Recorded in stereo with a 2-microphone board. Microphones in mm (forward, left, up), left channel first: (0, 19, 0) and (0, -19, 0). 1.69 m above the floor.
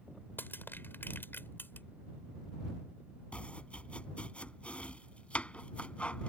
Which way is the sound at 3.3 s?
35° left (ahead or behind).